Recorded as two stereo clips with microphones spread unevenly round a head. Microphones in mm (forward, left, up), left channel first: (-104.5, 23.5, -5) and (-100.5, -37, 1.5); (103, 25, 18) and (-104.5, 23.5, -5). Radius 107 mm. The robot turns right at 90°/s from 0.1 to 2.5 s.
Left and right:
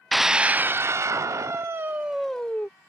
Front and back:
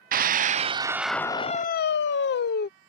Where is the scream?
175° left; by 2.7 s 30° left.